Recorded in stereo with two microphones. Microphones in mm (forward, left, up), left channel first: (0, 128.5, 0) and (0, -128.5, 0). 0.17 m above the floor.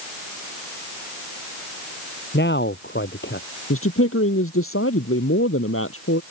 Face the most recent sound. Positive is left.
turn(degrees=65)  # may be behind; listen again after turning